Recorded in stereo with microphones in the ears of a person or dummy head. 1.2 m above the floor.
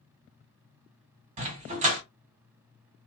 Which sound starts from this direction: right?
A dog barking, at 1.4 s.